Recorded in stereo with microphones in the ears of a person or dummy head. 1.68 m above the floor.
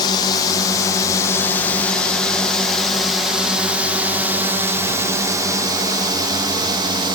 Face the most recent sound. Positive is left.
turn(degrees=-25)  # may be behind; listen again after turning